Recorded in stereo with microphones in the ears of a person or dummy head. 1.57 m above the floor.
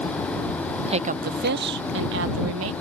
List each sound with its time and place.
0.9 s a woman speaking: 30° right (ahead or behind); by 2.7 s 80° right